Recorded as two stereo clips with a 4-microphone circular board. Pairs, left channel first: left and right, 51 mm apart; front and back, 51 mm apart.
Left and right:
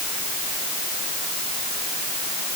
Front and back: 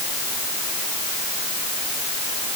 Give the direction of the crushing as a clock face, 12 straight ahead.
No crushing in this recording.